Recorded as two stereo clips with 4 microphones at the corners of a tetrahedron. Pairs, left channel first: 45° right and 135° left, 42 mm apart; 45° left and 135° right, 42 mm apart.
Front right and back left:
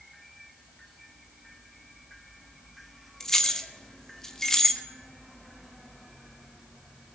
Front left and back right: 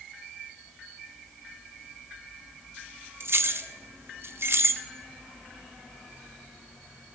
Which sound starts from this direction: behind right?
Keys jangling, at 3.2 s.